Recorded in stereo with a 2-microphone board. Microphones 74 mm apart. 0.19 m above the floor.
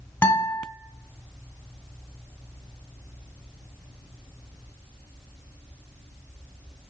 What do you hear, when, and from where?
0.2 s a guitar: 30° left (ahead or behind), 1.4 m